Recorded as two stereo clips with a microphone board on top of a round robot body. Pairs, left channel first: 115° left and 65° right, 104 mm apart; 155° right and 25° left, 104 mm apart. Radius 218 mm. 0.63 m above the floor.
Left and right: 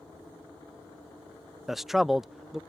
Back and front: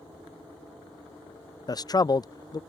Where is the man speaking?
155° right.